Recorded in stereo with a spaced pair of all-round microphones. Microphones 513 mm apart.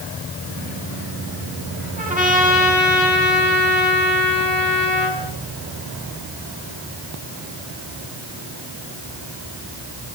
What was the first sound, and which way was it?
A trumpet, 15° right (ahead or behind).